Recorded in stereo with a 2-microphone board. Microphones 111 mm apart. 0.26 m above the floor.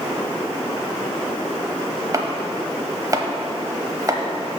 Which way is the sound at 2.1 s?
30° right (ahead or behind).